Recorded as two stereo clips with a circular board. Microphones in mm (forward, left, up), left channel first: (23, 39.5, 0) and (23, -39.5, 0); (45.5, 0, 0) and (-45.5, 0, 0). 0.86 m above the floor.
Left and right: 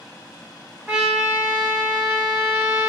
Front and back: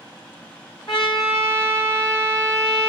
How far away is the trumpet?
About 2.5 m.